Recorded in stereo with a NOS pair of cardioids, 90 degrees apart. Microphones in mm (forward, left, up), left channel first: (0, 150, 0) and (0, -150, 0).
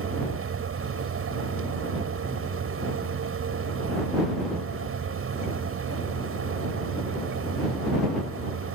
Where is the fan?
45° right.